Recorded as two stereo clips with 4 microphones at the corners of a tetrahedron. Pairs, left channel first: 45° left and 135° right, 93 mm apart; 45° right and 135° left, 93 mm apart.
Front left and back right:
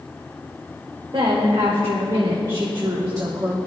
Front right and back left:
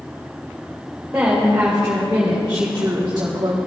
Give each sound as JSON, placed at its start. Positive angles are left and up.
{"t": 1.1, "sound": "a woman speaking", "azimuth_deg": -150, "distance_m": 3.0}